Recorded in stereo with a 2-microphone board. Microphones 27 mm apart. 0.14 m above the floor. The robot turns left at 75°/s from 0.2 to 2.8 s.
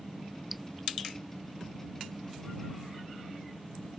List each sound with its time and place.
0.5 s dripping: 5° right (ahead or behind); by 0.7 s 5° left (ahead or behind)